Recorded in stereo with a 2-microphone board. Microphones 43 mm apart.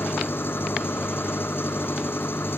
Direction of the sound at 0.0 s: 60° left (ahead or behind).